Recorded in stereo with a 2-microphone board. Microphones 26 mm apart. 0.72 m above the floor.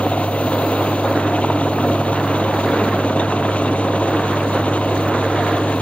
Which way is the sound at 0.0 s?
55° left (ahead or behind).